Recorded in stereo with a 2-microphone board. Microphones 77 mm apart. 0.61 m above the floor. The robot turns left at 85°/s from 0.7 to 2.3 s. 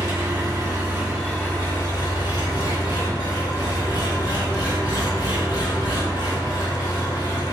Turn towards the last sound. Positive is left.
turn(degrees=90)